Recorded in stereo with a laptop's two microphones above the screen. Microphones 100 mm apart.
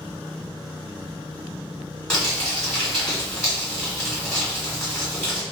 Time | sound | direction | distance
2.1 | crumpling | 10° left (ahead or behind) | 1.4 m